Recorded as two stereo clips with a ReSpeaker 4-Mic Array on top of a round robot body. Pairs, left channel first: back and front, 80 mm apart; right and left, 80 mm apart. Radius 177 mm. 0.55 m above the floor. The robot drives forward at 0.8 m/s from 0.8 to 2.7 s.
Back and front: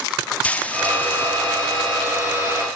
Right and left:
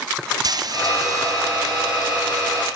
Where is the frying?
110° left, 1.8 m; by 1.5 s 125° left, 2 m.